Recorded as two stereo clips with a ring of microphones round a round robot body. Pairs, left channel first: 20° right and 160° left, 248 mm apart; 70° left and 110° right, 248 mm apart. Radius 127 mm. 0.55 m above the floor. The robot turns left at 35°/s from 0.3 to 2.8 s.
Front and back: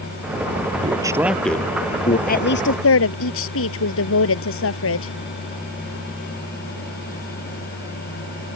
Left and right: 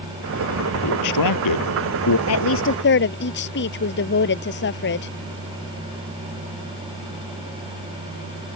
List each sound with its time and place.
0.8 s a man speaking: 90° left; by 2.2 s 40° left
2.3 s a woman speaking: 35° left; by 5.1 s 20° left